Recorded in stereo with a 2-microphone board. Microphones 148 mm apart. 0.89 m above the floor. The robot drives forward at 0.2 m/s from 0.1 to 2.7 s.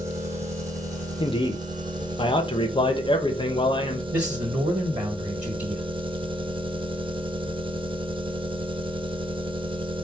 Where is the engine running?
20° right (ahead or behind), 0.8 m; by 10.1 s 35° right (ahead or behind), 0.5 m.